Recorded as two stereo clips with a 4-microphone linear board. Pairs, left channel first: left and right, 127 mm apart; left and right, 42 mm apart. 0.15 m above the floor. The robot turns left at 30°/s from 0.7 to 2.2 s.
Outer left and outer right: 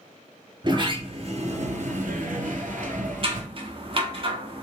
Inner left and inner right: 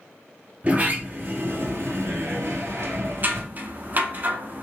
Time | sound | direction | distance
0.6 | a sliding door | 35° right | 0.6 m
3.2 | scissors | 45° right (ahead or behind) | 0.6 m